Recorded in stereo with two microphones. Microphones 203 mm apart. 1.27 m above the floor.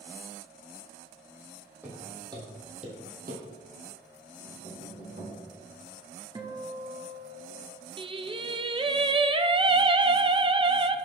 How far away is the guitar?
About 1.2 m.